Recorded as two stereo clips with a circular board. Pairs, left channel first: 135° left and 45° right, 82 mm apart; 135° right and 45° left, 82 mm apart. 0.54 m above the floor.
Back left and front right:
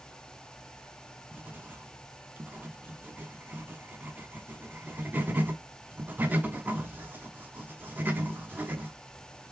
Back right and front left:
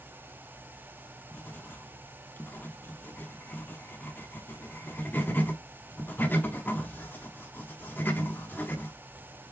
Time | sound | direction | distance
1.3 | writing | 95° right | 0.6 m